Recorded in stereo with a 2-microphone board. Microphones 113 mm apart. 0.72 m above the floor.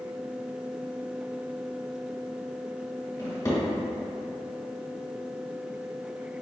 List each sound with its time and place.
3.2 s a drawer: 30° left (ahead or behind), 1.6 m